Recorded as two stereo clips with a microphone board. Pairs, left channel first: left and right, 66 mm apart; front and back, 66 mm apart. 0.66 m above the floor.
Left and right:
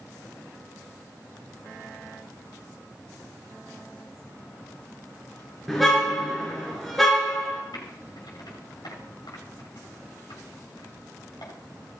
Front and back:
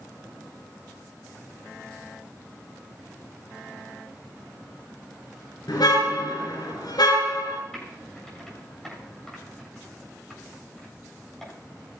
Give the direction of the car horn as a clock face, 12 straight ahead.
12 o'clock.